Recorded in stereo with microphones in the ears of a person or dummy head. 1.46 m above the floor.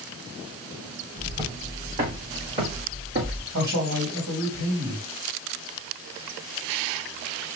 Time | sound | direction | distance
1.2 | footsteps | 25° right (ahead or behind) | 3.5 m
3.5 | a man speaking | 70° right (ahead or behind) | 3 m